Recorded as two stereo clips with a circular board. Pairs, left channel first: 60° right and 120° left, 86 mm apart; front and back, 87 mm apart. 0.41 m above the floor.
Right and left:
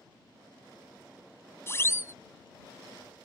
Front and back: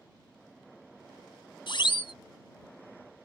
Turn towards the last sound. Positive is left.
turn(degrees=-5)